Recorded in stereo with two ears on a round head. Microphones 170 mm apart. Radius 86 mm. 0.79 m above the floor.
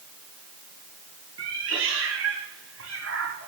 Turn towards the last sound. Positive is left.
turn(degrees=-85)